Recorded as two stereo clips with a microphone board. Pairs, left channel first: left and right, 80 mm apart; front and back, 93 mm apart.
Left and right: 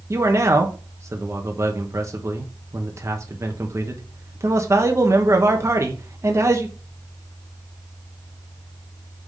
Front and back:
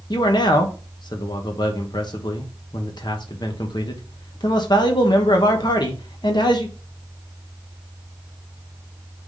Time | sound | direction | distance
0.1 | a man speaking | 35° right | 1.0 m